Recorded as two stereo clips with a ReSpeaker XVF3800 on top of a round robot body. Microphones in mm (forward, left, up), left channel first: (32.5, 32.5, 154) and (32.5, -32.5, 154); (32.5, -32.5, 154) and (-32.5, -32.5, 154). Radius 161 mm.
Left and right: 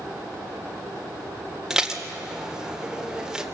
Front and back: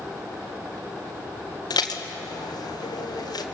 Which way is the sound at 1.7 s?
10° right.